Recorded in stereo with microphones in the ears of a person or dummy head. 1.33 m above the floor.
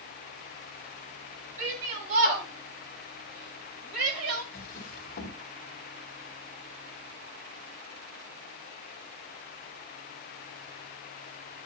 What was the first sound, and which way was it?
A shout, 50° right (ahead or behind).